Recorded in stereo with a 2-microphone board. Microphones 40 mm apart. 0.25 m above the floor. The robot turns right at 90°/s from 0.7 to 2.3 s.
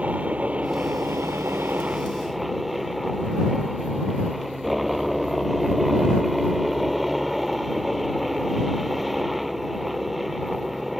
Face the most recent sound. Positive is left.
turn(degrees=-5)